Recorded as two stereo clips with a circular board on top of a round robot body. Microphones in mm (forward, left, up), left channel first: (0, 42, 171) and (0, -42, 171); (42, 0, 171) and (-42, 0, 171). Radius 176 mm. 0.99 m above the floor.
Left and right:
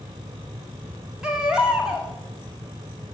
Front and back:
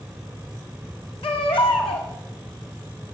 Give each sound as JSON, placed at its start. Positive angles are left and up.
{"t": 1.2, "sound": "a baby crying", "azimuth_deg": -10, "distance_m": 1.9}